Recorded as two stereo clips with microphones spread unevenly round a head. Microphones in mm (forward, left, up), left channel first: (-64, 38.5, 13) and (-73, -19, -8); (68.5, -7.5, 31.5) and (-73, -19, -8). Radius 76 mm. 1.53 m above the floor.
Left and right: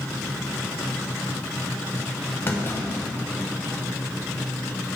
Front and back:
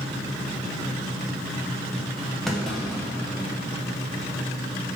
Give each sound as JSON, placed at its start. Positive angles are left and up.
{"t": 2.5, "sound": "a clunk", "azimuth_deg": 80, "distance_m": 0.8}